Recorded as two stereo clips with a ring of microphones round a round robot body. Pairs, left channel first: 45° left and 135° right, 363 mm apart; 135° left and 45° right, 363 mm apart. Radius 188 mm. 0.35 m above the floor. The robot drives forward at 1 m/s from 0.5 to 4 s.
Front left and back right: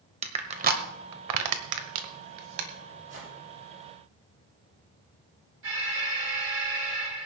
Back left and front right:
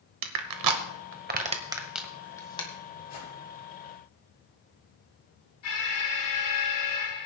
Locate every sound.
0.2 s crushing: 65° right, 1.3 m; by 2.7 s 150° right, 2 m
3.1 s a whoosh: 170° left, 8 m
5.6 s an alarm: 170° left, 7.5 m